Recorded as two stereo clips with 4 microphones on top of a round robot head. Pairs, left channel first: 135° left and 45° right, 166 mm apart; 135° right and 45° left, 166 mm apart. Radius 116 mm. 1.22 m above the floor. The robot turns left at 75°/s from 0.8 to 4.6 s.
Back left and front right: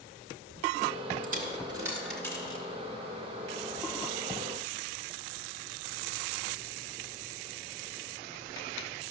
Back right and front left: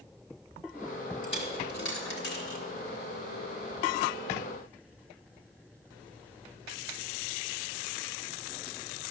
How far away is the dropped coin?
About 1.7 m.